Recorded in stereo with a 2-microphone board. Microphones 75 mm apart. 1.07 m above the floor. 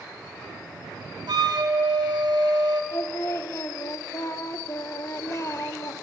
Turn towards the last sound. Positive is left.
turn(degrees=40)  # may be behind; listen again after turning